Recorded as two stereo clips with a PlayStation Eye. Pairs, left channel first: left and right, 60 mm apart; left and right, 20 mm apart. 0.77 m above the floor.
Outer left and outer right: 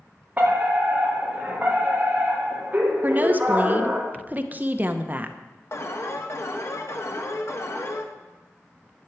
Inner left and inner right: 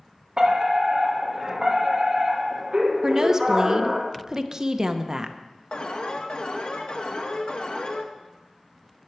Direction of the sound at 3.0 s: 30° right (ahead or behind).